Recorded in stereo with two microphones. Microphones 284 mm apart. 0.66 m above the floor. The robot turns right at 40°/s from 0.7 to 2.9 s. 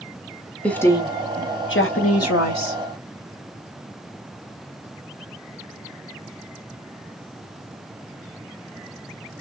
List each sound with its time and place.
0.6 s a woman speaking: 5° left, 1.5 m; by 2.8 s 90° left, 1.5 m